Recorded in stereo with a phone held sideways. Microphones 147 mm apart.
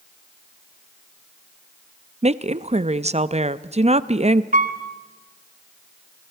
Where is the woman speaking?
50° right (ahead or behind), 0.6 m.